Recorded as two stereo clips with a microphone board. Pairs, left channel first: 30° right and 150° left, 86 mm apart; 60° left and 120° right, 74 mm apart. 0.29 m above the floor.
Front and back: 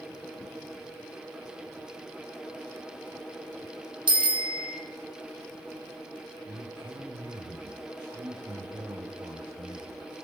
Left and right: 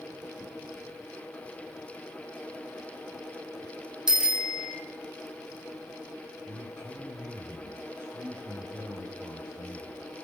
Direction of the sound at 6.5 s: 175° right.